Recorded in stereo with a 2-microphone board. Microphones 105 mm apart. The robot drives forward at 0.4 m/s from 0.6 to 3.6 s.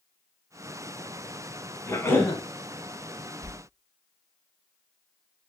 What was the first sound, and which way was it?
A cough, 25° left (ahead or behind).